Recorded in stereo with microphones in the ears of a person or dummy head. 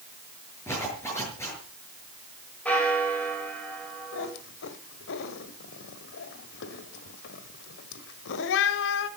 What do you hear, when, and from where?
0.7 s a zipper: 15° left (ahead or behind), 6 m
2.6 s a bell: 10° left (ahead or behind), 4.5 m
4.1 s a cat meowing: 60° left (ahead or behind), 1.5 m